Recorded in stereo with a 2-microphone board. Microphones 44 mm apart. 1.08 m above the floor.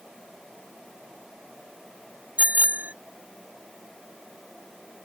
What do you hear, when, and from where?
2.4 s a bicycle bell: 35° right (ahead or behind)